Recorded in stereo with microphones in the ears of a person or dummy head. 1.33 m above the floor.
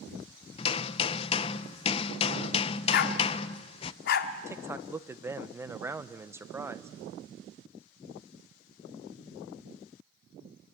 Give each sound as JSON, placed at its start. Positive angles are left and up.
{"t": 0.6, "sound": "hammering", "side_deg": 35, "distance_m": 0.6}
{"t": 2.9, "sound": "a dog barking", "side_deg": 60, "distance_m": 1.3}
{"t": 4.5, "sound": "a man speaking", "side_deg": -10, "distance_m": 0.8}